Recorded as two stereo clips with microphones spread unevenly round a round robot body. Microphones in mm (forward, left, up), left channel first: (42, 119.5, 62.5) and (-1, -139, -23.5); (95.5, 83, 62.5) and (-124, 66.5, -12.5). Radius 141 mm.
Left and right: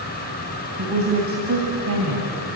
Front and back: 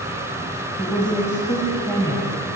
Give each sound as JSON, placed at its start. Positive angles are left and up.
{"t": 0.8, "sound": "a woman speaking", "azimuth_deg": -85, "distance_m": 3.0}